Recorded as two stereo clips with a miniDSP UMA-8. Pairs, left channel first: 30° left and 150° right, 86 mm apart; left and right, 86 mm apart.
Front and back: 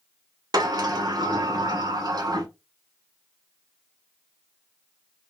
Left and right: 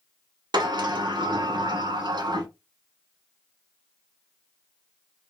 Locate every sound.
0.5 s a sliding door: 115° right, 0.6 m